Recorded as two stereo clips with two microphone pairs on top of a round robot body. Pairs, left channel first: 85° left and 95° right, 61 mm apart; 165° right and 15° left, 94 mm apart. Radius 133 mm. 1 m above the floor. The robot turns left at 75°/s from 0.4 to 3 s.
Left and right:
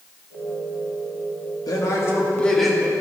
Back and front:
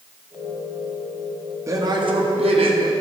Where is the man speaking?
75° left, 2 m; by 2.8 s 10° right, 2 m.